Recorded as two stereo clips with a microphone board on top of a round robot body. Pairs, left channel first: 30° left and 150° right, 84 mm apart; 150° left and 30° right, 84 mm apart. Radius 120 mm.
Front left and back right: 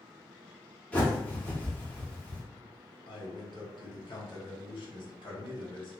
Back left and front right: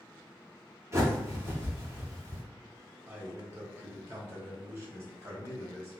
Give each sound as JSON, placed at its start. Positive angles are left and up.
{"t": 0.9, "sound": "a bird", "azimuth_deg": -25, "distance_m": 1.4}
{"t": 3.1, "sound": "a man speaking", "azimuth_deg": 25, "distance_m": 1.6}